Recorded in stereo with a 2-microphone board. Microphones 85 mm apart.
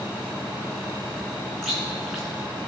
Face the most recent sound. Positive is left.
turn(degrees=0)  # may be behind; listen again after turning